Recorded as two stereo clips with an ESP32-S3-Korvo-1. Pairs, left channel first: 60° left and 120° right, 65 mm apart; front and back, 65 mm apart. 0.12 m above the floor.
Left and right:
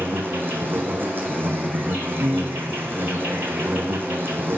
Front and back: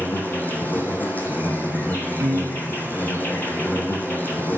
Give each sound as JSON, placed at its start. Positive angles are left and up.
{"t": 0.0, "sound": "an insect", "azimuth_deg": -65, "distance_m": 1.0}
{"t": 2.2, "sound": "a piano", "azimuth_deg": -165, "distance_m": 0.8}